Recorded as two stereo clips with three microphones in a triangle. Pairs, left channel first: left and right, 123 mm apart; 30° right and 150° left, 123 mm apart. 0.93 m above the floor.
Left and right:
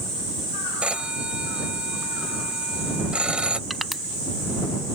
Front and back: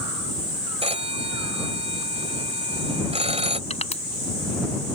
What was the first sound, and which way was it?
A phone ringing, 170° right.